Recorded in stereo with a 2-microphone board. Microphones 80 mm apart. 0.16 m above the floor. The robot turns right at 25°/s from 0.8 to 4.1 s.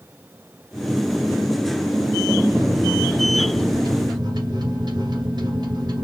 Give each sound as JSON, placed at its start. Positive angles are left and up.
{"t": 2.5, "sound": "a microwave", "azimuth_deg": -130, "distance_m": 1.6}